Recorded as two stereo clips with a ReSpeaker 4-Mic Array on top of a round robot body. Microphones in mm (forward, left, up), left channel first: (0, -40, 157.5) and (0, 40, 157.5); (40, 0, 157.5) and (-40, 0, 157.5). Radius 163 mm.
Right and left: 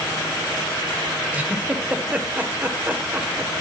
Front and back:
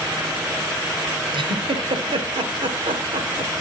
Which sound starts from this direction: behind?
A giggle, at 1.3 s.